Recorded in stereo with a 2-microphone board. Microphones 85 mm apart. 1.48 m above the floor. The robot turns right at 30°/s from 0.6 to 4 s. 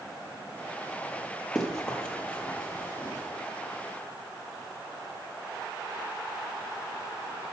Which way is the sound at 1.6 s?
Centre (ahead or behind).